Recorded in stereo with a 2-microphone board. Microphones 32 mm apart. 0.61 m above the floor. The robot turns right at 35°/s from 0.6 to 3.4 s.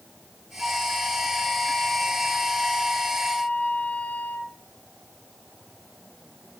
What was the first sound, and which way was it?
A flute, 20° left.